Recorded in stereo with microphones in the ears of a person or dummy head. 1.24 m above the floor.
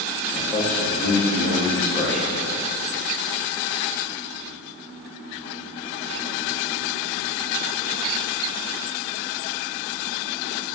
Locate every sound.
0.3 s a man speaking: 5° left (ahead or behind), 0.7 m